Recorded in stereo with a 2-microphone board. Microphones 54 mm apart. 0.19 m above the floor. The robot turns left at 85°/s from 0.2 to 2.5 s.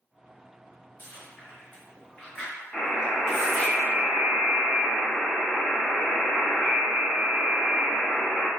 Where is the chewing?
30° left (ahead or behind), 1.9 m; by 3.7 s centre (ahead or behind), 1.9 m.